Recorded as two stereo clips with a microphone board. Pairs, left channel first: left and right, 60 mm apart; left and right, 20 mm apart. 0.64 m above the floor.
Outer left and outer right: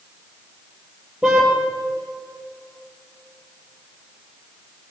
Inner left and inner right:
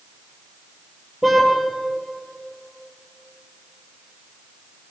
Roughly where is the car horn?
Centre.